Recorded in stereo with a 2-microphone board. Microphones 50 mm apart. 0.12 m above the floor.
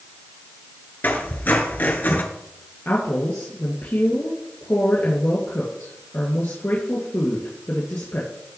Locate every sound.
1.0 s a squeak: 40° left (ahead or behind), 1.5 m
2.9 s a woman speaking: 55° left (ahead or behind), 2.5 m